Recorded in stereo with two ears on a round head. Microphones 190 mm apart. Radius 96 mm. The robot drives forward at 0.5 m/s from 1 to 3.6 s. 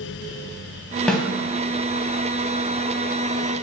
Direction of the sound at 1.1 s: 5° left (ahead or behind).